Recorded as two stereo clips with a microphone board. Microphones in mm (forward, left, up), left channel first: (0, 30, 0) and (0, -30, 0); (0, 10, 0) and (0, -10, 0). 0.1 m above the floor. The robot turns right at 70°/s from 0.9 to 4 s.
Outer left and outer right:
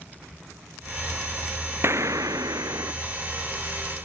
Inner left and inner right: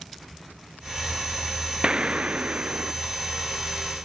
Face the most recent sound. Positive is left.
turn(degrees=20)